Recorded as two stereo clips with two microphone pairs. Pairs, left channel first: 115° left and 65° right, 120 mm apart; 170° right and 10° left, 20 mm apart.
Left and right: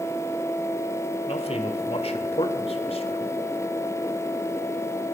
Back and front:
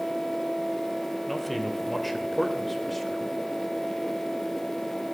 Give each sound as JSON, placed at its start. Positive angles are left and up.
{"t": 1.3, "sound": "a man speaking", "azimuth_deg": 100, "distance_m": 1.8}